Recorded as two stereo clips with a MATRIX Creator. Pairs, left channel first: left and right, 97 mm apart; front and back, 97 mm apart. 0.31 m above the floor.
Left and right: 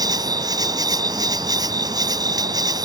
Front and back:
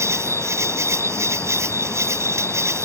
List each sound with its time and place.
0.0 s an insect: 125° right